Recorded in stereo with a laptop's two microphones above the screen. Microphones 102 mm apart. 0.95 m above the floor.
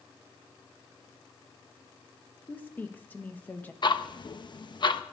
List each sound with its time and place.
2.5 s a woman speaking: 20° left (ahead or behind), 1.1 m
3.8 s ticking: 50° left (ahead or behind), 0.9 m